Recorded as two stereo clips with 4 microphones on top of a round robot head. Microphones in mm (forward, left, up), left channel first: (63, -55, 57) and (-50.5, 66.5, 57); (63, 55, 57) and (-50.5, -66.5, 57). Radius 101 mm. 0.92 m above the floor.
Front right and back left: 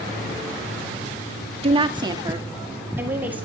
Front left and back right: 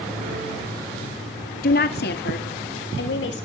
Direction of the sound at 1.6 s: 80° left.